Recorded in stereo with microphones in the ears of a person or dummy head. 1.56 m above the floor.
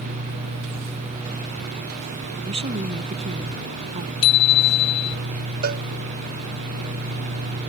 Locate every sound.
2.4 s a woman speaking: 30° right (ahead or behind); by 4.1 s 35° right (ahead or behind)
4.2 s a bicycle bell: 30° left (ahead or behind)
5.6 s a cowbell: 45° right (ahead or behind)